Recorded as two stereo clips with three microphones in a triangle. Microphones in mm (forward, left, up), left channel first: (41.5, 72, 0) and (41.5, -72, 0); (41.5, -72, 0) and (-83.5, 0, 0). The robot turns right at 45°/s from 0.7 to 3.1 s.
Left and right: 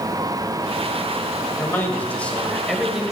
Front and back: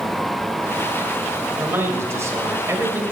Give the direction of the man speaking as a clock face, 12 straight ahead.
8 o'clock.